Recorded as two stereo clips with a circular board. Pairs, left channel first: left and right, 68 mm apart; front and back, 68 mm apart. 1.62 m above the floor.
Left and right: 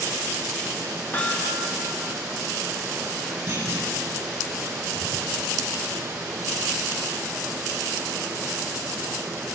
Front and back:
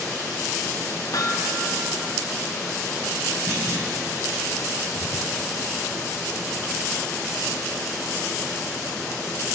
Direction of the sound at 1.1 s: 30° left.